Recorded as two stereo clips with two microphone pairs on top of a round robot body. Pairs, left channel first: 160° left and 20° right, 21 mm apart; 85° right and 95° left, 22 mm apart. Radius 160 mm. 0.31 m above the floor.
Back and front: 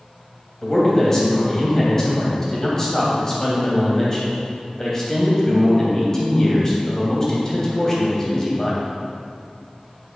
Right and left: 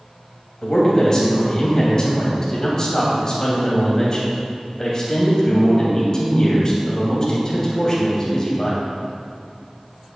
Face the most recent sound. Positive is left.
turn(degrees=-140)